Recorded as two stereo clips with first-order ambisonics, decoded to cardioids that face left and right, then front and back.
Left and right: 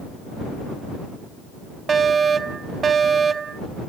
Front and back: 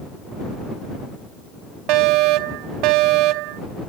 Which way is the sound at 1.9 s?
160° right.